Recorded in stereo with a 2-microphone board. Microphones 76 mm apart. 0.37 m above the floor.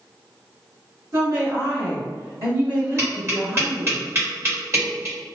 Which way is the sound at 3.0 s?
35° right (ahead or behind).